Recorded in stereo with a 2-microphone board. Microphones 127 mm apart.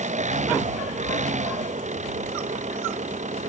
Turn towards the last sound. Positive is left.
turn(degrees=-85)